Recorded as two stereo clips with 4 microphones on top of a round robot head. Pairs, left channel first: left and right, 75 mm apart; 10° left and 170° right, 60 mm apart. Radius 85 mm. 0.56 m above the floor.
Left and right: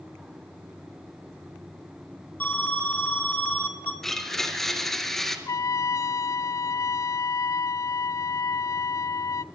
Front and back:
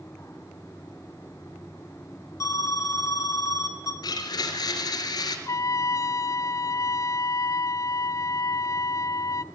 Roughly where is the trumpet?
Ahead left.